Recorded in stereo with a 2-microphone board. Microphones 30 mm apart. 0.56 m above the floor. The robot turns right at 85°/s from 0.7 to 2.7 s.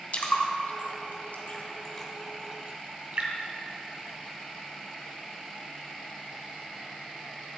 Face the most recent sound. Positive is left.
turn(degrees=-45)  # may be behind; listen again after turning